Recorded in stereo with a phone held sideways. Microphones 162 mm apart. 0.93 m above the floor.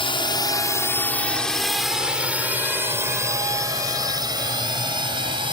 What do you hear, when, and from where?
0.0 s a drone: 35° left (ahead or behind); by 5.5 s 30° right (ahead or behind)